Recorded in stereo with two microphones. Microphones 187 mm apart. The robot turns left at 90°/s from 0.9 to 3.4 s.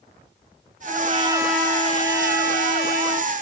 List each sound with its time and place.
0.9 s a trumpet: 120° right, 0.8 m; by 3.3 s 20° left, 0.8 m